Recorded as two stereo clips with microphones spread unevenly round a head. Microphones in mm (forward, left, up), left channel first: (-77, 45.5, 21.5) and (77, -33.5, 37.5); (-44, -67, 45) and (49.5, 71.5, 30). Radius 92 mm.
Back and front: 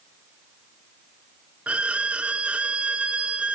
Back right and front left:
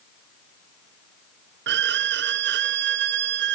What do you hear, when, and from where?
1.7 s a violin: 60° left, 0.7 m